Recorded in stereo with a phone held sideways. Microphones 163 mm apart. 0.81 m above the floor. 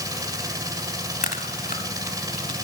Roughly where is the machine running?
Right.